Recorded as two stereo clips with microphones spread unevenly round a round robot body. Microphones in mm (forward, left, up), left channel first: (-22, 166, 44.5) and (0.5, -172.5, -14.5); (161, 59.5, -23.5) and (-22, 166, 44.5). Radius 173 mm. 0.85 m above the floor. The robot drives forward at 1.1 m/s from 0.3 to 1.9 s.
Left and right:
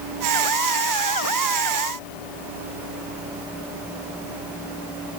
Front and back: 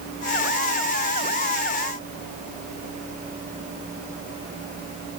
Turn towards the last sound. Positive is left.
No sound to turn to.